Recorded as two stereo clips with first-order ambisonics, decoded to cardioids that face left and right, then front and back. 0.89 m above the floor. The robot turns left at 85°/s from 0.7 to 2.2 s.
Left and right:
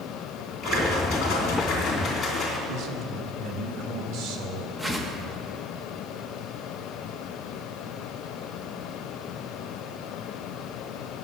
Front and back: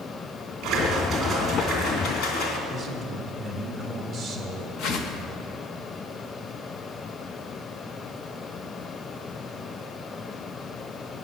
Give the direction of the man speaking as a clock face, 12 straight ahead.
3 o'clock.